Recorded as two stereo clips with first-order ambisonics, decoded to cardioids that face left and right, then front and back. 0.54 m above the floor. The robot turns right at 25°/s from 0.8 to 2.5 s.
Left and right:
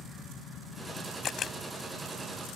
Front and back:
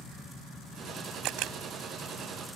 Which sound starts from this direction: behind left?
A camera shutter, at 1.2 s.